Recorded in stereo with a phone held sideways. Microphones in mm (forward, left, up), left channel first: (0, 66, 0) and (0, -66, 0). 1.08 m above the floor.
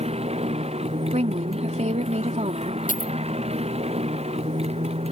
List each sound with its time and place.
0.0 s a motorcycle: 50° right (ahead or behind)
1.1 s a woman speaking: 60° right (ahead or behind)
2.9 s a dropped coin: 85° left